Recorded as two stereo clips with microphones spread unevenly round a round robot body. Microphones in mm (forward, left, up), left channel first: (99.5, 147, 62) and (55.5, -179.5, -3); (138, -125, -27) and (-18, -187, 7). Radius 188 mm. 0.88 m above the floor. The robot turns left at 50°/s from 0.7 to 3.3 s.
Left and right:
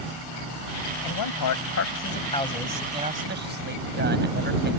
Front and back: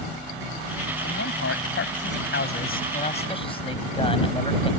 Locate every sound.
1.0 s a man speaking: 75° left; by 4.7 s 35° right